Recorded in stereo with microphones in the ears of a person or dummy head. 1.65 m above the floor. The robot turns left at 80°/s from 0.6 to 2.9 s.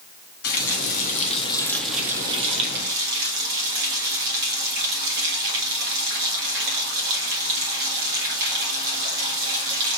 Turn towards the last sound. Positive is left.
turn(degrees=-80)